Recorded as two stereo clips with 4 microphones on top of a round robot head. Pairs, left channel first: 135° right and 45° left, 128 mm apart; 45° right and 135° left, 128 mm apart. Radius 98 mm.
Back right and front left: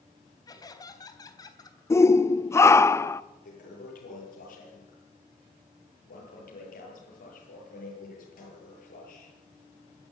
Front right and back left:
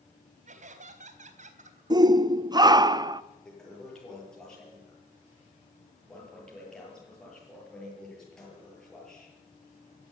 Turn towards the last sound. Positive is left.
turn(degrees=-130)